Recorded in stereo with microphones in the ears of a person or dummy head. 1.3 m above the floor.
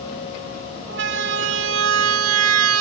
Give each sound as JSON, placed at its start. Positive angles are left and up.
{"t": 0.9, "sound": "a siren", "side_deg": -60}